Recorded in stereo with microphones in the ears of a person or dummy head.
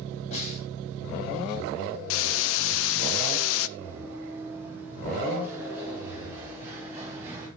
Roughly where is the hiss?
Left.